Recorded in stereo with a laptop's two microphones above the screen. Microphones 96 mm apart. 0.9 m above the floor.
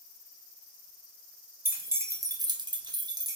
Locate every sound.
1.6 s keys jangling: 25° right (ahead or behind), 0.9 m; by 3.4 s 40° right (ahead or behind), 0.6 m